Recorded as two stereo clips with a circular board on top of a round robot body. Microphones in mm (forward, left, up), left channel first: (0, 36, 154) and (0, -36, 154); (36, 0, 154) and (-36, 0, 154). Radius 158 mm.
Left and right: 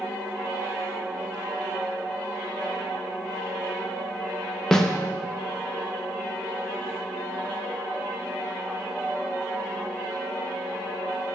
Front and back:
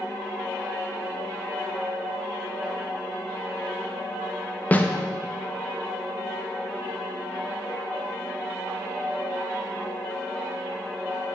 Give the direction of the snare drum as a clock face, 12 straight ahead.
11 o'clock.